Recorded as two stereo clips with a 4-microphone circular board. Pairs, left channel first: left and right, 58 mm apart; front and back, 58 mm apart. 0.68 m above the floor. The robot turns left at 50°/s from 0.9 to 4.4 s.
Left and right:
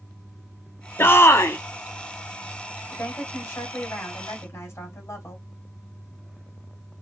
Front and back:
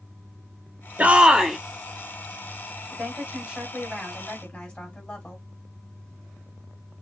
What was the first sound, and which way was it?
A shout, 125° left.